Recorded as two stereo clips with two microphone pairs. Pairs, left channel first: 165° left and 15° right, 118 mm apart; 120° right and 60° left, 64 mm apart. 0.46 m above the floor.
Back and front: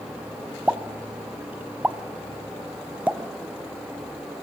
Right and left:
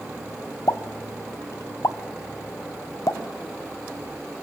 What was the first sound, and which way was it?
A pop, 95° right.